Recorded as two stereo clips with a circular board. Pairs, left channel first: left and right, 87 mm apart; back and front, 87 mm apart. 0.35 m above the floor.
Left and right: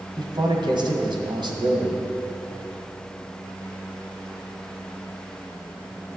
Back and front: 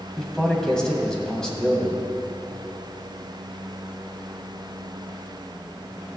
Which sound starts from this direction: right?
A man speaking, at 0.2 s.